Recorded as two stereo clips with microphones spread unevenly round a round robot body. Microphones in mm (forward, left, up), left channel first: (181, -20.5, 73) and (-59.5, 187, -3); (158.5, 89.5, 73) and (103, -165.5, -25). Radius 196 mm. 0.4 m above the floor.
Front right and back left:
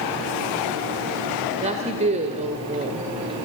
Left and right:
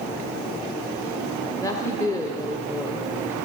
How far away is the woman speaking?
About 1.6 m.